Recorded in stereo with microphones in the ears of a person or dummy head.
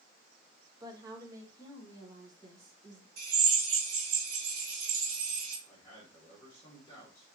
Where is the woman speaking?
20° right (ahead or behind), 0.9 m.